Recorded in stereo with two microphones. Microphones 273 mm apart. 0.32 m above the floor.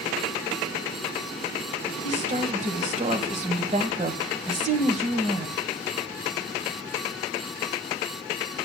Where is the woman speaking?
25° right (ahead or behind), 1.7 m.